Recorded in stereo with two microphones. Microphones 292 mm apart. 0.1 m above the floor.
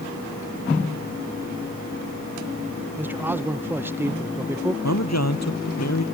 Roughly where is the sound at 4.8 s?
Left.